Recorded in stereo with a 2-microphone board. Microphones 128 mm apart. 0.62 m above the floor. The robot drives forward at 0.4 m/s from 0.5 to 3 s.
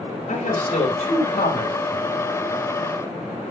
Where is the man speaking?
75° left (ahead or behind), 3 m; by 2.1 s 70° left (ahead or behind), 3 m.